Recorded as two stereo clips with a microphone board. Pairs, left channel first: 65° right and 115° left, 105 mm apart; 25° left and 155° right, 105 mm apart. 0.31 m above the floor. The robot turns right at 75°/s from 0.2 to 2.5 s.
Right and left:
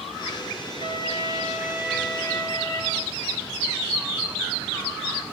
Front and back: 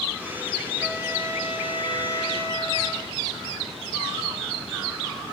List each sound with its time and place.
0.8 s a trumpet: 120° left, 4.5 m; by 3.0 s 115° right, 4.5 m